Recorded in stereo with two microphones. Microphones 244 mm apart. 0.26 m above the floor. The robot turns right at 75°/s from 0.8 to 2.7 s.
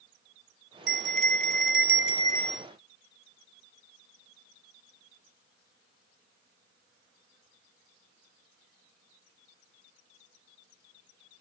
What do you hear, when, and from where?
0.9 s a bell: 55° left; by 2.7 s 170° right